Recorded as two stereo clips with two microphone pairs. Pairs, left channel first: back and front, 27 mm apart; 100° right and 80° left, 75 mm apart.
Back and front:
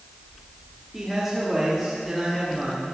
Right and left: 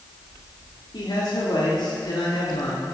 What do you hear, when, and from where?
0.9 s a man speaking: 85° right, 3.5 m